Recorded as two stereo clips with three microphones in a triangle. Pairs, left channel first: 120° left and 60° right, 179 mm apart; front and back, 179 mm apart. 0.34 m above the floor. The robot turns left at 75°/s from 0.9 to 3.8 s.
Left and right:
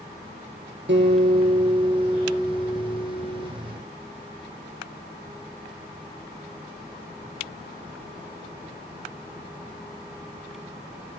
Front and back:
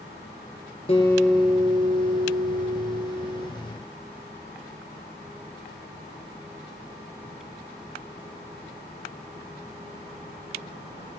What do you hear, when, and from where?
0.9 s a guitar: 60° right, 4.5 m; by 3.5 s 105° left, 4.5 m